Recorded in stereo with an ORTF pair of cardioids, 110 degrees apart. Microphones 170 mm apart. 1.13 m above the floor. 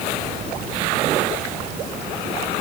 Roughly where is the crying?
I don't hear crying.